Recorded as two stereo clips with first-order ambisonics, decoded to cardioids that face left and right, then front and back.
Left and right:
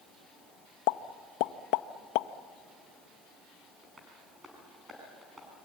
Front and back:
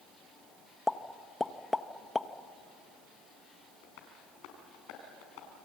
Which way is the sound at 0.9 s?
80° left.